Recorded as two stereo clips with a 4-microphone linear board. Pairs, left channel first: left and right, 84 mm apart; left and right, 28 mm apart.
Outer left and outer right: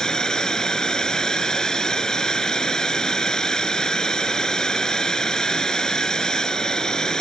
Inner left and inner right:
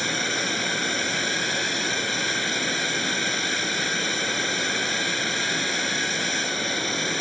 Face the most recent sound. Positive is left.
turn(degrees=10)  # may be behind; listen again after turning